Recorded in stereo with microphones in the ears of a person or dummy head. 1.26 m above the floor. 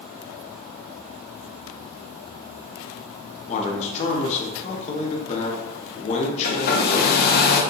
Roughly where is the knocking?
I don't hear knocking.